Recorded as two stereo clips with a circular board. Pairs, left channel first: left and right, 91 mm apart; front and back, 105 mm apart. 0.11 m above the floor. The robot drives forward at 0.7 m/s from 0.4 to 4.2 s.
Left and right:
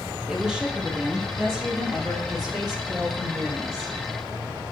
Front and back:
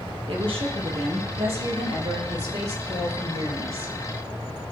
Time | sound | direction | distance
0.3 | a woman speaking | 170° right | 2.5 m